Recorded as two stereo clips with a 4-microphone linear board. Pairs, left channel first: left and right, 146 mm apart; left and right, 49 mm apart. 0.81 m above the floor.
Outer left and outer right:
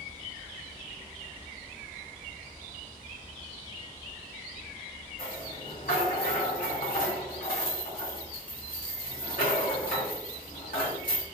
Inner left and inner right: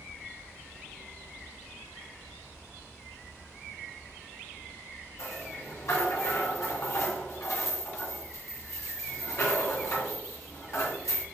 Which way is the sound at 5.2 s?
70° left (ahead or behind).